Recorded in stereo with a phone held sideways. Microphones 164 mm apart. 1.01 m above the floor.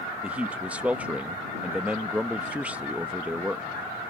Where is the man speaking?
10° right (ahead or behind).